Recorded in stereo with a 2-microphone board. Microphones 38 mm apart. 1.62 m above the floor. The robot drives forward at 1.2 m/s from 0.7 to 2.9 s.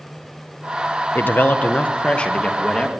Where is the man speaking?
65° left (ahead or behind), 1.2 m; by 2.9 s 20° left (ahead or behind), 3 m.